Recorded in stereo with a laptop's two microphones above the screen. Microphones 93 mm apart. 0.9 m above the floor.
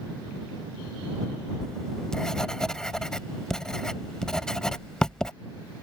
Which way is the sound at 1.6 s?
10° left (ahead or behind).